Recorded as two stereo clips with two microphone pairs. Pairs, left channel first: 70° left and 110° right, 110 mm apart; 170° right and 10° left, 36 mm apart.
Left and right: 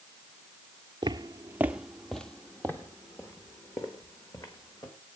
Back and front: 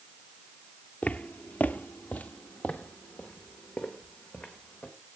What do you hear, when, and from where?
1.0 s footsteps: 140° right, 0.6 m; by 4.9 s 125° left, 2 m